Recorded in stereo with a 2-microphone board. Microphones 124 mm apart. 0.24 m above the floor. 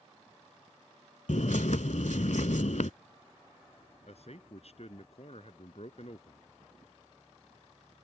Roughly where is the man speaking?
Left.